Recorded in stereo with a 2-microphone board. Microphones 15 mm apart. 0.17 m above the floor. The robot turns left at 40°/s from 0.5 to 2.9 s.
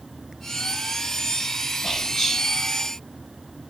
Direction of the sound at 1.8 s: 35° left (ahead or behind).